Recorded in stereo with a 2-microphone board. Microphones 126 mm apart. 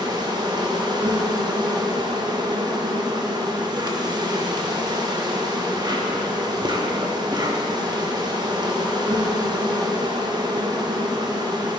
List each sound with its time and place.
0.0 s an insect: 35° right (ahead or behind), 0.8 m